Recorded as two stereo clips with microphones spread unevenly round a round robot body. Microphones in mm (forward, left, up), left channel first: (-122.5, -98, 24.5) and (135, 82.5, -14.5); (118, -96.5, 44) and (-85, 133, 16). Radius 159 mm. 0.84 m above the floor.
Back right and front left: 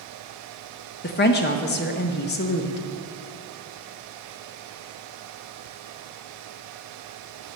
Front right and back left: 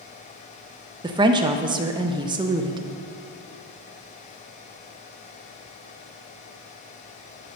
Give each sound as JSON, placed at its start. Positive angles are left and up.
{"t": 1.0, "sound": "a woman speaking", "azimuth_deg": 180, "distance_m": 0.6}